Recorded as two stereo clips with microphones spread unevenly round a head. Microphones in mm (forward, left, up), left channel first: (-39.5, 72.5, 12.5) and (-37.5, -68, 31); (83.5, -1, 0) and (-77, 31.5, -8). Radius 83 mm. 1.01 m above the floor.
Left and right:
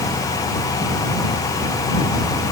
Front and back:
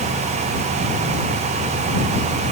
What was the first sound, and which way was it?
Only background noise.